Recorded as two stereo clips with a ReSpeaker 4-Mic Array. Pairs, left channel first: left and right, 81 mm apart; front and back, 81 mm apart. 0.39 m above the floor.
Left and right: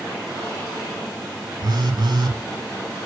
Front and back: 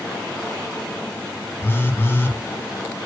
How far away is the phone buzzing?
About 0.7 m.